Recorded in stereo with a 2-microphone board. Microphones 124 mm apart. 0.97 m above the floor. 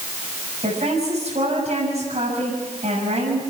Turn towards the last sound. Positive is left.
turn(degrees=-60)  # may be behind; listen again after turning